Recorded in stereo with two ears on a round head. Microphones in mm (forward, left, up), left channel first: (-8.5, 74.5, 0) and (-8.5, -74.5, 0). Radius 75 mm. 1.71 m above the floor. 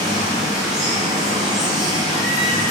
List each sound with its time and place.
0.0 s running water: 25° right (ahead or behind), 1.5 m